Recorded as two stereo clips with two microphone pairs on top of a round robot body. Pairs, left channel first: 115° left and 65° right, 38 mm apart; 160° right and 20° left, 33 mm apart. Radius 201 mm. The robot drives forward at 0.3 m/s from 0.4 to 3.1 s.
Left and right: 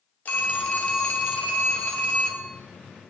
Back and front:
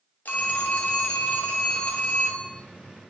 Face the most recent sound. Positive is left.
turn(degrees=175)